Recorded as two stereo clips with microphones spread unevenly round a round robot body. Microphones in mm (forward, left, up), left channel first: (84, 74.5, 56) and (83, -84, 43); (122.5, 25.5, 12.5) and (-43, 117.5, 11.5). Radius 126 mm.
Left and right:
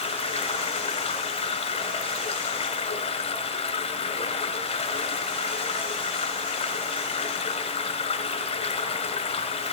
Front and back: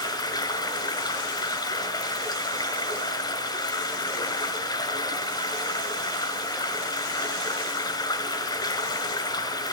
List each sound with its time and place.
0.0 s running water: 40° left, 2 m